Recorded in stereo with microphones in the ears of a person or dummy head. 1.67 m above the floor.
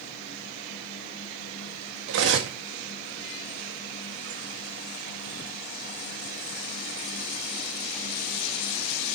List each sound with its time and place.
2.1 s cutlery clinking: 65° right (ahead or behind), 1.8 m